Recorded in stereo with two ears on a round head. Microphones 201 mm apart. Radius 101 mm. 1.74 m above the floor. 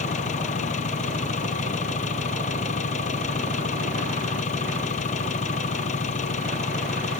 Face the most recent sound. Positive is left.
turn(degrees=35)  # may be behind; listen again after turning